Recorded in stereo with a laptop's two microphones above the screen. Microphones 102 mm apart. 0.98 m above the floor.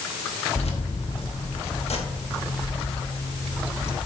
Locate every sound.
0.6 s keys jangling: 75° left (ahead or behind), 1.1 m